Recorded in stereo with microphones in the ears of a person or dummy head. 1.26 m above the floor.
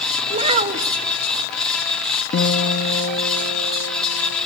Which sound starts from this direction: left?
A guitar, at 2.3 s.